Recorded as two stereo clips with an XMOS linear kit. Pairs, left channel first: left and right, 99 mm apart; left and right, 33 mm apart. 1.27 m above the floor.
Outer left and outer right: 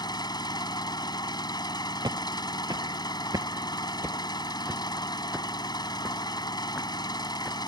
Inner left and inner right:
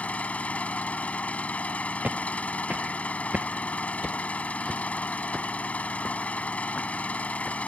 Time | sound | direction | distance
0.0 | an engine running | 45° left (ahead or behind) | ?
2.0 | footsteps | 45° right (ahead or behind) | ?